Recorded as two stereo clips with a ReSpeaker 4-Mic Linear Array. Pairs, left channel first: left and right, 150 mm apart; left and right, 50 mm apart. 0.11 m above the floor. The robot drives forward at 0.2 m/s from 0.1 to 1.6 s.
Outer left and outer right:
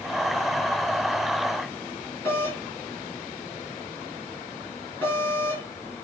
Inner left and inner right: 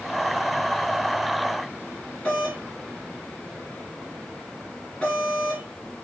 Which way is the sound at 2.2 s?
15° left (ahead or behind).